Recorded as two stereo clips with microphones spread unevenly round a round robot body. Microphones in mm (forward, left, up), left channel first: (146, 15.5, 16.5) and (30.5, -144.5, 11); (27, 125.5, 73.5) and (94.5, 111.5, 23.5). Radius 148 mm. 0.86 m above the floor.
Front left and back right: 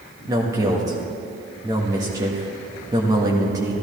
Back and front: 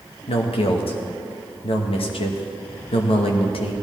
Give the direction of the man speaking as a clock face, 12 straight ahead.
7 o'clock.